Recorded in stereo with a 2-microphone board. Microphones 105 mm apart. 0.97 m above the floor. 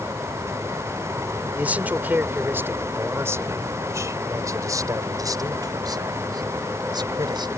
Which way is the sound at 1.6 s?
15° right (ahead or behind).